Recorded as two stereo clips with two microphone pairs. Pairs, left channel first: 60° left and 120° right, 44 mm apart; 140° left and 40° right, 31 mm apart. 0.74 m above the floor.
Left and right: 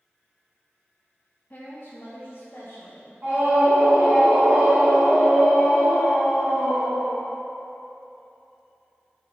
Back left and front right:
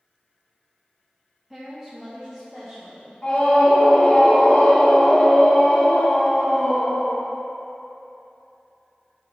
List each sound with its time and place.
1.5 s a woman speaking: 35° left, 0.6 m; by 3.1 s 50° left, 1.9 m
3.2 s a scream: 165° right, 1.2 m